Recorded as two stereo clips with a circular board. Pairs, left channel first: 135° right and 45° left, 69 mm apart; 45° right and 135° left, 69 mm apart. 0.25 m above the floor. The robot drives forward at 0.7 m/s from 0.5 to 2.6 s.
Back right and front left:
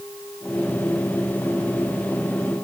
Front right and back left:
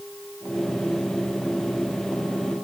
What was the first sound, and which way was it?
Only background noise.